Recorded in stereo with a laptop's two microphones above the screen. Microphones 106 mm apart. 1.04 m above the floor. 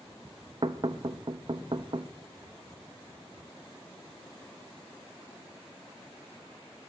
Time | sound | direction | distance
0.6 | knocking | 50° right (ahead or behind) | 0.6 m